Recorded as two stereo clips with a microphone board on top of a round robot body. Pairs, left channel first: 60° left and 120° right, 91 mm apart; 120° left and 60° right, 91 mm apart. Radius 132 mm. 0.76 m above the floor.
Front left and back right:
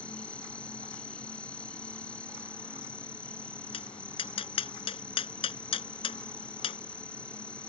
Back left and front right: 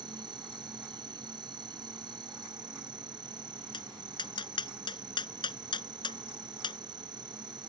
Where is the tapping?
80° left.